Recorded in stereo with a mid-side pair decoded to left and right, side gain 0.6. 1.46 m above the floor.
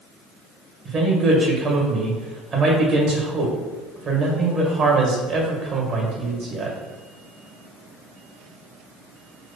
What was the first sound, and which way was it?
A man speaking, 45° right.